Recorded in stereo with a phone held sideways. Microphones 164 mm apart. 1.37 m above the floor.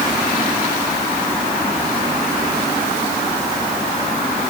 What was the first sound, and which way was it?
Only background noise.